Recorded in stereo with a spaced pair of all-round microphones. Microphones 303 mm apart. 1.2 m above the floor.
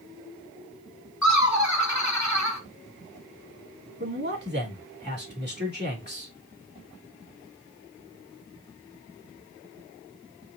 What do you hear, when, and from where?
1.2 s laughter: 65° left (ahead or behind), 1.2 m
4.0 s a man speaking: 35° right (ahead or behind), 2.5 m